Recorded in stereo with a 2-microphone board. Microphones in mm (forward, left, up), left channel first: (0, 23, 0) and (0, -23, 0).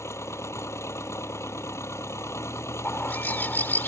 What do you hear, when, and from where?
0.0 s an engine running: 85° left
2.9 s a bird: 45° left (ahead or behind)